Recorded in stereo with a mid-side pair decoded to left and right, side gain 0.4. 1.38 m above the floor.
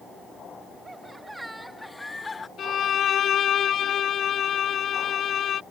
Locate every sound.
0.8 s laughter: 25° right; by 2.5 s 35° left
2.6 s a violin: 65° left